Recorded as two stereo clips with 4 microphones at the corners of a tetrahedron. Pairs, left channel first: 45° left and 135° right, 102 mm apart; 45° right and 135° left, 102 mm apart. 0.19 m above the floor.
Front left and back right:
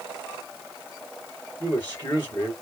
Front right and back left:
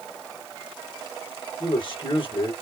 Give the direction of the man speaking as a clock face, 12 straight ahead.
1 o'clock.